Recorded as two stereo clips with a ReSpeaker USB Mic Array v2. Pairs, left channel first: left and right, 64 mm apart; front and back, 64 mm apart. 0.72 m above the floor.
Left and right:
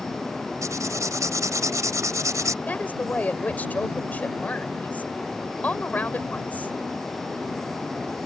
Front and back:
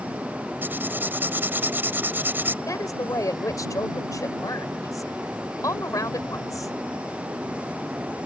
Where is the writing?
120° right.